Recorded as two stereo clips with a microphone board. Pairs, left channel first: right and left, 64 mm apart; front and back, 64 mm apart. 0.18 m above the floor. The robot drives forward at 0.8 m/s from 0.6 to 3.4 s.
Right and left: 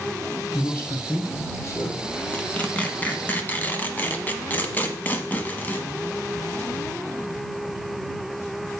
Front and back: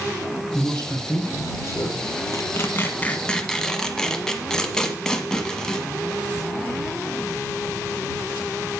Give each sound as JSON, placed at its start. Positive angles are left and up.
{"t": 0.5, "sound": "a man speaking", "azimuth_deg": -35, "distance_m": 3.5}
{"t": 2.3, "sound": "tearing paper", "azimuth_deg": -25, "distance_m": 1.4}